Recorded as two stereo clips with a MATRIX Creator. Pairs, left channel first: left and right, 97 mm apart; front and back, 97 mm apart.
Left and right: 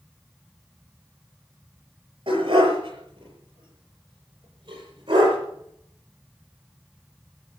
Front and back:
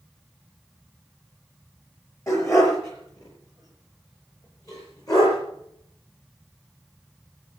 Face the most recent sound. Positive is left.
turn(degrees=-50)